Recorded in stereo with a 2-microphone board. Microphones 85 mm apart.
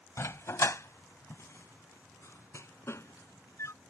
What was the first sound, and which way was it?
A dog barking, 35° left (ahead or behind).